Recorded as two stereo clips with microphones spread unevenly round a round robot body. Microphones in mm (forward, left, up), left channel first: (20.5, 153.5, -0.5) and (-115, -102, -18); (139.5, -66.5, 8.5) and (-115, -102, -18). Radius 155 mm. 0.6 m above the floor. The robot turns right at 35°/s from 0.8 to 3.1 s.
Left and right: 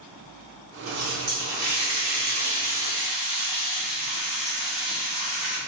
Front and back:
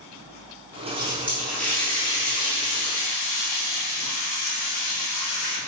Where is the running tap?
105° right, 1.6 m; by 5.6 s 25° right, 1.6 m.